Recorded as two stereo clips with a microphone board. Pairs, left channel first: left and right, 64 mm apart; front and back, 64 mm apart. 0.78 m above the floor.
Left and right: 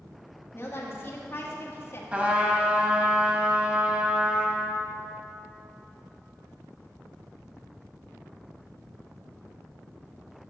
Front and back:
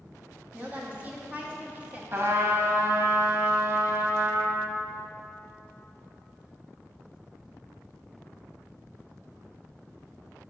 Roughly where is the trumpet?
Behind right.